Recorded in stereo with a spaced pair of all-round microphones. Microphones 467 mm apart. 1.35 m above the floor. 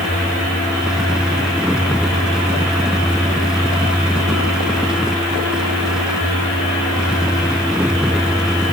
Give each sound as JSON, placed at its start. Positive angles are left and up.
{"t": 0.0, "sound": "a fan", "side_deg": 0}